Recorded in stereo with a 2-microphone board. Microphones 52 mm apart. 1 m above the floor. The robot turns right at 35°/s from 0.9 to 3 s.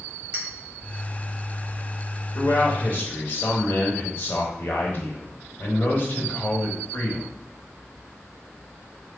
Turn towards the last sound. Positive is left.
turn(degrees=40)  # may be behind; listen again after turning